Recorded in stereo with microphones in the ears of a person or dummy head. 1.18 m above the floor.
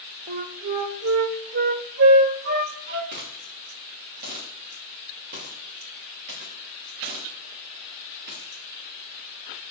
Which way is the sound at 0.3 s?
55° right (ahead or behind).